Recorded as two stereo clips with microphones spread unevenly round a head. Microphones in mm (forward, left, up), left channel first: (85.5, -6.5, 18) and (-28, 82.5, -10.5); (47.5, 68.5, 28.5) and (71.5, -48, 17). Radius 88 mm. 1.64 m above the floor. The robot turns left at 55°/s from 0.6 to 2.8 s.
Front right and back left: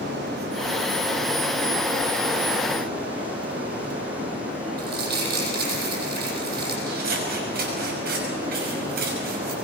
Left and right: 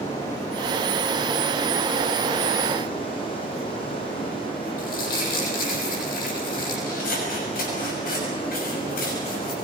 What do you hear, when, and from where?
0.0 s running water: straight behind, 7.5 m; by 9.6 s 60° left, 7.5 m
4.8 s crumpling: 120° left, 9 m
6.9 s scissors: 120° left, 6.5 m